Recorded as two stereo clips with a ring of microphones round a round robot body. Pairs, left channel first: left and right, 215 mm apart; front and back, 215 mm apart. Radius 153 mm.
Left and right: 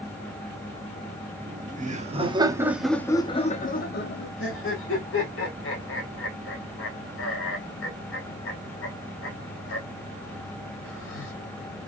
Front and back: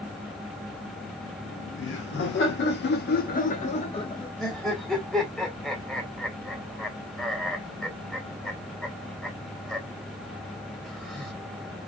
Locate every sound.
1.4 s laughter: 45° right, 1.2 m; by 4.3 s 70° left, 1.0 m
4.4 s laughter: 90° left, 1.7 m